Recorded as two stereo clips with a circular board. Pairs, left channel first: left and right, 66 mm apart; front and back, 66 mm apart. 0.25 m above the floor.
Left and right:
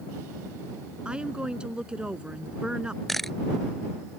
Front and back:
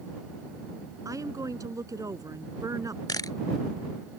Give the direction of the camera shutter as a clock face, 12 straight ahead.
12 o'clock.